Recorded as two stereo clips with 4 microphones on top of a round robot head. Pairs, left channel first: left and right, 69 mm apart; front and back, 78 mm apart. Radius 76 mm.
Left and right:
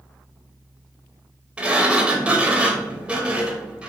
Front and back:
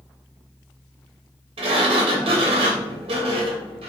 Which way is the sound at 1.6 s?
165° right.